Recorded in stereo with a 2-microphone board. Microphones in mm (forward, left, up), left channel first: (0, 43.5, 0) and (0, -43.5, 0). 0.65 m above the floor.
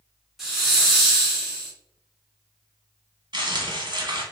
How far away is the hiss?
About 1.3 m.